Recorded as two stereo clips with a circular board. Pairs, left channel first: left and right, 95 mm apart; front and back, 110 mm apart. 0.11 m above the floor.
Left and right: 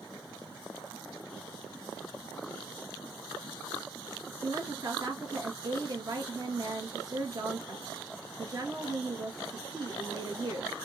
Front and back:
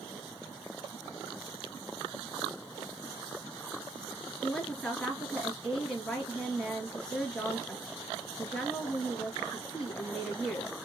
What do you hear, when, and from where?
4.4 s a woman speaking: 80° right, 2 m